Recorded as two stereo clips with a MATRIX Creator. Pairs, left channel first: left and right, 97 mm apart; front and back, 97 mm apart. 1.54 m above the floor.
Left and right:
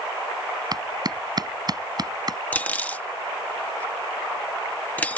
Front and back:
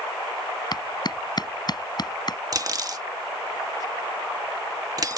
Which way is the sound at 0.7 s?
45° right.